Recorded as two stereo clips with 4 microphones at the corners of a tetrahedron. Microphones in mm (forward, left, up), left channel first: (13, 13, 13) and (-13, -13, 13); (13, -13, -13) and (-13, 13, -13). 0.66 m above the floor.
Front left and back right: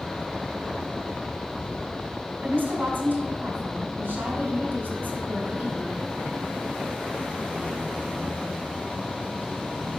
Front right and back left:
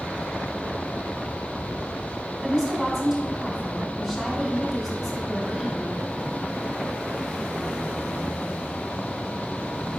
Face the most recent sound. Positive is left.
turn(degrees=-145)